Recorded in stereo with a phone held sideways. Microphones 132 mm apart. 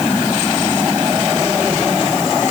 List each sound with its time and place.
Only background noise.